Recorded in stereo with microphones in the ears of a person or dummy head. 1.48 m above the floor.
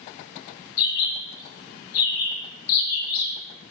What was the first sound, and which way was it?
A bird, 80° left.